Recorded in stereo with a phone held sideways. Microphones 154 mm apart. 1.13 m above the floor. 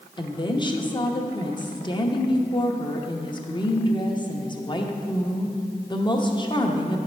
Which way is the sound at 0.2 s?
30° left (ahead or behind).